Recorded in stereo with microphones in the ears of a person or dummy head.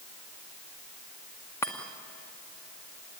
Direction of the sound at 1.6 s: 15° left (ahead or behind).